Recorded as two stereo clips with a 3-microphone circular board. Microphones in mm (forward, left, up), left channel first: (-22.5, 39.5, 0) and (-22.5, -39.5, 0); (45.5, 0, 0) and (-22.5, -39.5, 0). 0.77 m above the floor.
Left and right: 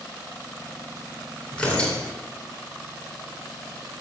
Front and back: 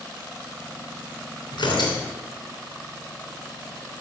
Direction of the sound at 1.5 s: 15° left.